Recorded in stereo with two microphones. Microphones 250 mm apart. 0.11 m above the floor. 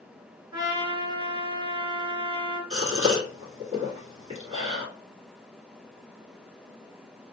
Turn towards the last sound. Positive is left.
turn(degrees=-25)  # may be behind; listen again after turning